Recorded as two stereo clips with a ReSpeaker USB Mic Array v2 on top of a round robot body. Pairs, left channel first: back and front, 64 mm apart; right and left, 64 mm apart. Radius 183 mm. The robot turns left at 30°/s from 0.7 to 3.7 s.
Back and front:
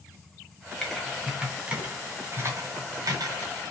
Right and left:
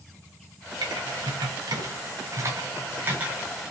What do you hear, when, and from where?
0.8 s typing on a keyboard: 95° left, 2 m; by 3.7 s 10° left, 2 m